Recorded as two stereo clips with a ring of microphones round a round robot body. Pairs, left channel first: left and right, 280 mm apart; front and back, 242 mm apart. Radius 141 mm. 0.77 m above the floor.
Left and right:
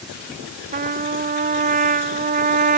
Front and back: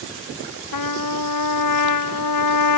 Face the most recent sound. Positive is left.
turn(degrees=-25)